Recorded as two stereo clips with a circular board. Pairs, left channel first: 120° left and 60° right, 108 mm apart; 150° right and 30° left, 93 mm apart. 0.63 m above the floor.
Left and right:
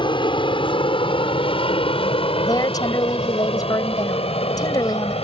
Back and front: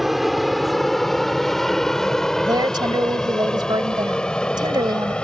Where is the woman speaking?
70° left.